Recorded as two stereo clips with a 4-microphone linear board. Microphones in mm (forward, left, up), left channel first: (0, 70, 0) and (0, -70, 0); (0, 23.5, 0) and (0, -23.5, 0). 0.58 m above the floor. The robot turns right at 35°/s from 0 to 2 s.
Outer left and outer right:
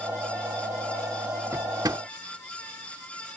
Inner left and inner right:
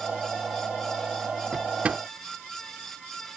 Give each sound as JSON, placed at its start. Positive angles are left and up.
{"t": 1.5, "sound": "a drawer", "side_deg": -20}